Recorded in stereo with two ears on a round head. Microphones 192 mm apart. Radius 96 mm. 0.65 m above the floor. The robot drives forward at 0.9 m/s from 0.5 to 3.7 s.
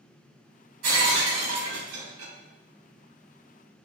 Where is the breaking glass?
75° right (ahead or behind), 2 m; by 2.3 s 70° right (ahead or behind), 2 m.